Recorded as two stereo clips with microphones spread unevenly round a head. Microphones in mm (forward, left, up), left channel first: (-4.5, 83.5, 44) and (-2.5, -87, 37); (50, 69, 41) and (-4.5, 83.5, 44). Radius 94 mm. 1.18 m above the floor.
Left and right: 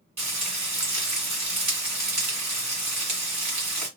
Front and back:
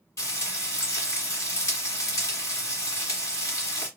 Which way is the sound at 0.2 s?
15° right.